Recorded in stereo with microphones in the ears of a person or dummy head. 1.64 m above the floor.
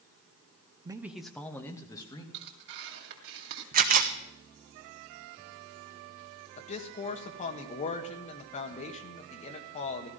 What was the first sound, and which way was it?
A man speaking, 20° right (ahead or behind).